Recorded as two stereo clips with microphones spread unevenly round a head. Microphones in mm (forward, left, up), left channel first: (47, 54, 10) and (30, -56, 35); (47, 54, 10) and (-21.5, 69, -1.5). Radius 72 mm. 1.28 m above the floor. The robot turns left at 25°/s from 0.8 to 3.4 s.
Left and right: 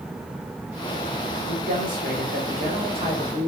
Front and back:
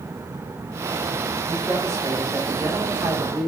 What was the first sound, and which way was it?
A man speaking, 110° right.